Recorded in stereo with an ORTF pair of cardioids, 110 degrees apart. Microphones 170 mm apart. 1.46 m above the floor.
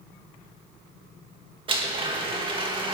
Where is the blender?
30° right, 2 m.